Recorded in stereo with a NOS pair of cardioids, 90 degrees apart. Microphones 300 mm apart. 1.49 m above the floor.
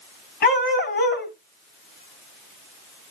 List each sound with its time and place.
0.4 s a dog barking: 35° left, 4 m